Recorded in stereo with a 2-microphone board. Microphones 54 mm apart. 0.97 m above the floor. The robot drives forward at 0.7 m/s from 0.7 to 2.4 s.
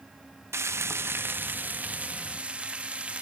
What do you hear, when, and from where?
0.5 s frying: 55° right (ahead or behind), 0.7 m; by 3.2 s 20° right (ahead or behind), 1.4 m